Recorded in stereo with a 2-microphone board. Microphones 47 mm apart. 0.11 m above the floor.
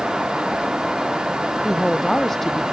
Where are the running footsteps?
No running footsteps in this recording.